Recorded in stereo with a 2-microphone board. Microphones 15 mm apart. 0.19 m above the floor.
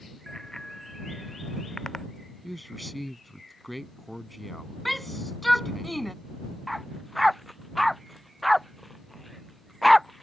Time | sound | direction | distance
0.3 | a bicycle bell | 35° left (ahead or behind) | ?
2.4 | a man speaking | 5° left (ahead or behind) | ?
4.8 | a shout | 5° left (ahead or behind) | ?
6.7 | a dog barking | 5° left (ahead or behind) | ?